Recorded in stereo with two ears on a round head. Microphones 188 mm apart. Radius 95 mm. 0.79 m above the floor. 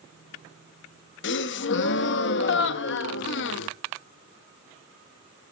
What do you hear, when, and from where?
1.2 s a gasp: 60° left (ahead or behind), 0.7 m